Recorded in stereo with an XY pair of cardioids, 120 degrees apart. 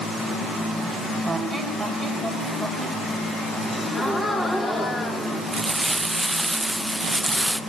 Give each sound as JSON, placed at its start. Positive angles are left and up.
{"t": 1.2, "sound": "a squeak", "azimuth_deg": 0, "distance_m": 4.0}
{"t": 3.7, "sound": "a gasp", "azimuth_deg": 15, "distance_m": 3.5}
{"t": 5.5, "sound": "crumpling", "azimuth_deg": -15, "distance_m": 0.8}